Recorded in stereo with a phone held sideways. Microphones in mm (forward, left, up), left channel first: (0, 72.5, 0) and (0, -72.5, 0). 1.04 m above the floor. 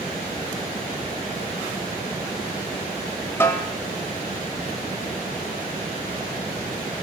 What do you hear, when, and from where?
3.4 s a snare drum: 15° left (ahead or behind), 1.3 m